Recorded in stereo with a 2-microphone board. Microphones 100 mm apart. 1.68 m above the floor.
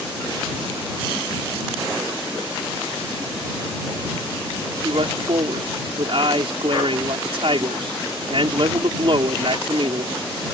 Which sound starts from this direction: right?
A man speaking, at 4.8 s.